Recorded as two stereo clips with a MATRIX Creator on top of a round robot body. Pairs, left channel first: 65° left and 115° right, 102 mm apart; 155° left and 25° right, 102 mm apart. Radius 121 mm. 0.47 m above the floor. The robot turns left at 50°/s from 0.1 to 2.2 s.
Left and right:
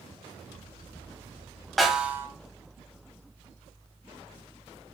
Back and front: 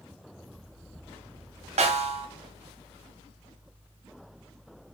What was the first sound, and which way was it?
A snare drum, 20° right.